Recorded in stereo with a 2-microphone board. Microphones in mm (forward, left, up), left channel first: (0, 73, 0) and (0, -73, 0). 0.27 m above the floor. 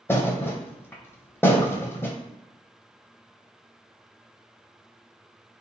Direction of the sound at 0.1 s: 15° left (ahead or behind).